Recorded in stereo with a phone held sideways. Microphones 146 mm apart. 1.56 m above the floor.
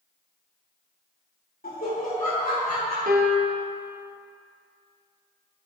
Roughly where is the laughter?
Left.